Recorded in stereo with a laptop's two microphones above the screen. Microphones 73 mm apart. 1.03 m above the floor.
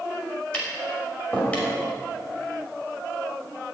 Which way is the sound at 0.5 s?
15° left (ahead or behind).